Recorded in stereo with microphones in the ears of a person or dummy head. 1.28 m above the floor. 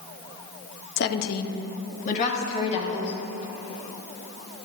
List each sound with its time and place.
1.0 s a woman speaking: 50° left (ahead or behind), 0.6 m; by 3.1 s 40° left (ahead or behind), 1.8 m